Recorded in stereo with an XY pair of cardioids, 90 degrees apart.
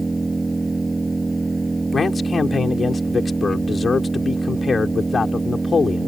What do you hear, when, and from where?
0.0 s an engine running: 20° right
1.9 s a man speaking: 40° left